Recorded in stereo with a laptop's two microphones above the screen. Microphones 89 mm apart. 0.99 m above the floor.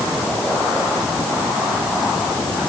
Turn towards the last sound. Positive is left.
No sound to turn to.